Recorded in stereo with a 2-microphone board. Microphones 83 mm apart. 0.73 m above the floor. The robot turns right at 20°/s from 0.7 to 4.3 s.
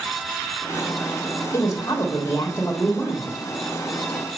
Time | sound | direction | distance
1.5 | a woman speaking | 125° left | 1.4 m